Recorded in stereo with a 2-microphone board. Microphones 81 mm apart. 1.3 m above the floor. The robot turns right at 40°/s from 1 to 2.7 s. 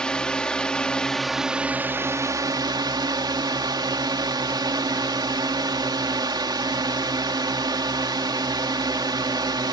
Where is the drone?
170° left; by 9.7 s 120° right.